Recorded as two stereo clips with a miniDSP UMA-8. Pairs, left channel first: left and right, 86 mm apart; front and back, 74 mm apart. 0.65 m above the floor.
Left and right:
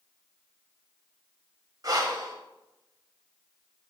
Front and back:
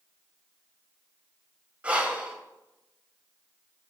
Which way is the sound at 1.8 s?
110° right.